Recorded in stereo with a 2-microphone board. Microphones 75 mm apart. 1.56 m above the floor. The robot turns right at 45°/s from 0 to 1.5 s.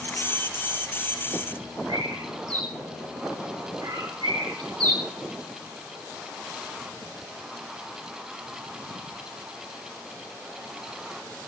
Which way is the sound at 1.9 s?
80° right.